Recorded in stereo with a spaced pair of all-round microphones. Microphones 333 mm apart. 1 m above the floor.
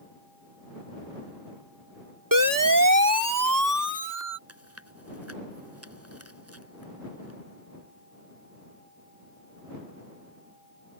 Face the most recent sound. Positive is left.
turn(degrees=-45)  # may be behind; listen again after turning